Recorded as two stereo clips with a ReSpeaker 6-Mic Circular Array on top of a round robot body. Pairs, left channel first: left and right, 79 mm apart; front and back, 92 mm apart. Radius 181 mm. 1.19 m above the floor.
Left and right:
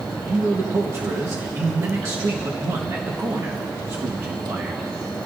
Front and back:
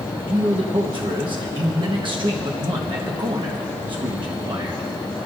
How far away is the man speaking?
About 1.2 m.